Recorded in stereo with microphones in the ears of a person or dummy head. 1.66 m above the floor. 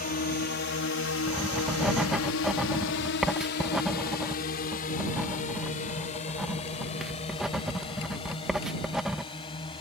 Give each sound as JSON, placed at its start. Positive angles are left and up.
{"t": 0.0, "sound": "a drone", "side_deg": 45}
{"t": 1.3, "sound": "writing", "side_deg": -5}